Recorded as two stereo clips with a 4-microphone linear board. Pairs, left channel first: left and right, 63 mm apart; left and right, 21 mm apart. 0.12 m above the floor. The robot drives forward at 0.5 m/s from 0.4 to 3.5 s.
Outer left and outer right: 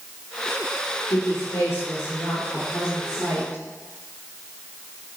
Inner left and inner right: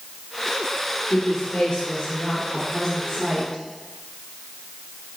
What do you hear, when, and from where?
1.1 s a woman speaking: 50° left (ahead or behind), 3 m; by 3.6 s 40° left (ahead or behind), 3.5 m